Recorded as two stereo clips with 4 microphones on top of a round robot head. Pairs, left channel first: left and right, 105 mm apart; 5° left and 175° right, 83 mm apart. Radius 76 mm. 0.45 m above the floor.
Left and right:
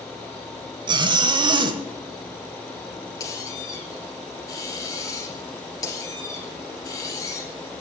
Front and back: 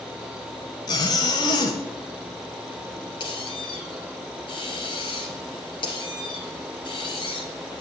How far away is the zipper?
About 0.8 m.